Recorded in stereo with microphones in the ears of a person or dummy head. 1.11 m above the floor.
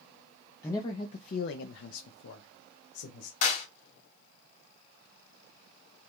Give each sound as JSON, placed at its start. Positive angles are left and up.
{"t": 0.6, "sound": "a man speaking", "side_deg": 15, "distance_m": 0.6}
{"t": 3.4, "sound": "a clap", "side_deg": 50, "distance_m": 1.8}